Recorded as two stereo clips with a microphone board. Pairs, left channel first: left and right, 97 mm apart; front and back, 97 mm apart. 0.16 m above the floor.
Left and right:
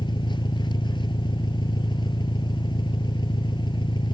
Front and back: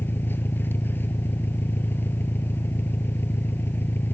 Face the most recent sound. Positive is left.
turn(degrees=65)